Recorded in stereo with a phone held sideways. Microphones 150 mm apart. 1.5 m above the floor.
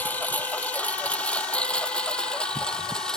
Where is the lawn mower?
10° left (ahead or behind); by 3.2 s 5° left (ahead or behind).